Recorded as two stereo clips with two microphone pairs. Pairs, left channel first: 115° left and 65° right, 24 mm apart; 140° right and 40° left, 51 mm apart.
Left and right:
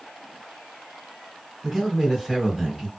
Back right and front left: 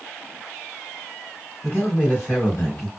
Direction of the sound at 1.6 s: 165° right.